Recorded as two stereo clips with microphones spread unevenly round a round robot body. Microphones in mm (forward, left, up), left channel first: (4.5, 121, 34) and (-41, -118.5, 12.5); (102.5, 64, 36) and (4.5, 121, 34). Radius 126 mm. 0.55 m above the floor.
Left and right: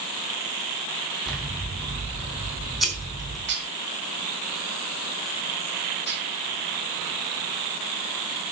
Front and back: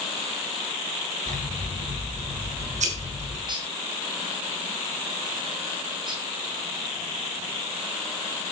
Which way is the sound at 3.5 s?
145° right.